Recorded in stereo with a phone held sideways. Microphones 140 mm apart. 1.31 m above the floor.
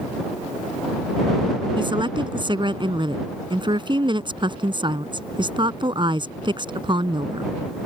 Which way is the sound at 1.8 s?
35° right (ahead or behind).